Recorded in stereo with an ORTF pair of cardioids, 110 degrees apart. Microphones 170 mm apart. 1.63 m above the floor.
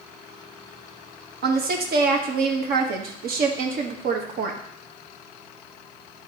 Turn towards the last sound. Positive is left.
turn(degrees=-60)